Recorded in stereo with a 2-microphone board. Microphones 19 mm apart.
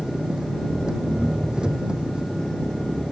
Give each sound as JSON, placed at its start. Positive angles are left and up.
{"t": 0.0, "sound": "an engine running", "side_deg": -50}